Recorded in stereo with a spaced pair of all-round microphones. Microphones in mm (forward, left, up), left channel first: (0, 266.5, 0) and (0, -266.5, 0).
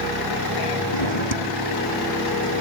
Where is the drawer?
55° left (ahead or behind).